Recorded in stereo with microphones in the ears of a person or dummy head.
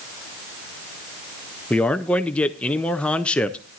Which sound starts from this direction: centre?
A man speaking, at 1.7 s.